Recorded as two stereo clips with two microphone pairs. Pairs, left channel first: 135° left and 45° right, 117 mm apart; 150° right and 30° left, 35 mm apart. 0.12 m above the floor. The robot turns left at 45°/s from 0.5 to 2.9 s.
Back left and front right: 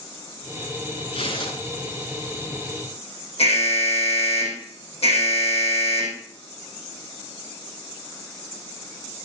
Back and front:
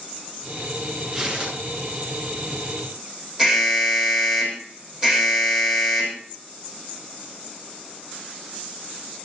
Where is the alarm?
105° left, 4 m.